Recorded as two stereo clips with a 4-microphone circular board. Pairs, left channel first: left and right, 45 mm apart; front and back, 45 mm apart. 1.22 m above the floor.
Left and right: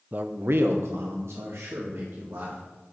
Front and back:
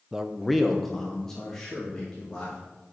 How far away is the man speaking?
About 0.6 m.